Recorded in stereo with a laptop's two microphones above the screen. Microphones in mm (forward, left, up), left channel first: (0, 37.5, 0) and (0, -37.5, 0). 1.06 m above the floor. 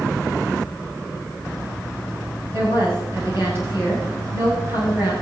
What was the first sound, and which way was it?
A woman speaking, 35° right (ahead or behind).